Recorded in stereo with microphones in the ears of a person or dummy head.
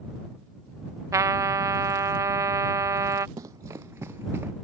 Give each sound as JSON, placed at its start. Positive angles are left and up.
{"t": 1.1, "sound": "a trumpet", "side_deg": -15}
{"t": 3.4, "sound": "running footsteps", "side_deg": -20}